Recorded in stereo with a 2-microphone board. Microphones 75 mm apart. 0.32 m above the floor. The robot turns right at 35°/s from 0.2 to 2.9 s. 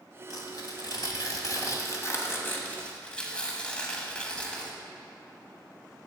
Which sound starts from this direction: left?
Tearing paper, at 0.3 s.